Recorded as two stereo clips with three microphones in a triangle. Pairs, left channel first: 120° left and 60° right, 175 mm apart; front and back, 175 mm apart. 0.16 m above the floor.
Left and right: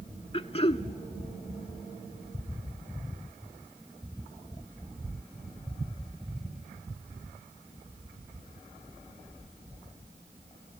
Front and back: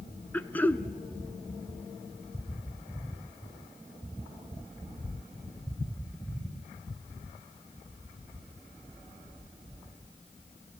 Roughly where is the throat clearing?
Left.